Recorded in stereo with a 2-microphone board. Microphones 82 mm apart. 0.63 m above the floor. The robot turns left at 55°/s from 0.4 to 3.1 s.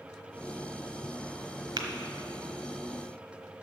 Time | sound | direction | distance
1.8 | tapping | 65° right (ahead or behind) | 1.1 m